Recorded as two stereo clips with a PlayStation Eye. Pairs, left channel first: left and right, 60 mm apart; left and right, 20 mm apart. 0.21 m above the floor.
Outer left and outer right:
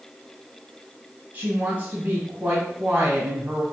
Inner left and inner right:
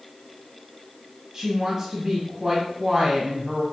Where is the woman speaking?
30° right (ahead or behind), 1.2 m.